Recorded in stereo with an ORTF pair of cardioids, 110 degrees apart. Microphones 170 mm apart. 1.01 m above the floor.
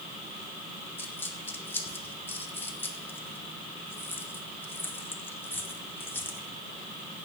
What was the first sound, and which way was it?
A dropped coin, 10° left.